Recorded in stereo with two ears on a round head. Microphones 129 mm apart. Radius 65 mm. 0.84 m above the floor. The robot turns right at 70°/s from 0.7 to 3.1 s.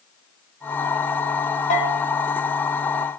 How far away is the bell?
About 2.5 m.